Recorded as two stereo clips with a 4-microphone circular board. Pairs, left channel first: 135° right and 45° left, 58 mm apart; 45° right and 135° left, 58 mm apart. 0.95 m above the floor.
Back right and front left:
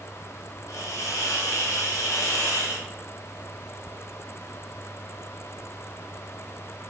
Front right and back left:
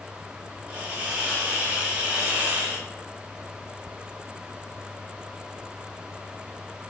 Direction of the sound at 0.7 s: 160° right.